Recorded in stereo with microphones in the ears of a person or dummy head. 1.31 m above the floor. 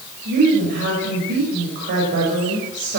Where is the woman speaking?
55° right (ahead or behind), 5.5 m.